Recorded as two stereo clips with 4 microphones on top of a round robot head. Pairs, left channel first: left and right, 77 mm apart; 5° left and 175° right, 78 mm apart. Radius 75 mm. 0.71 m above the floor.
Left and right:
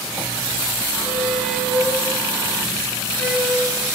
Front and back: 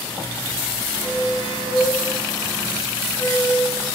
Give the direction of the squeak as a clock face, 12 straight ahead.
12 o'clock.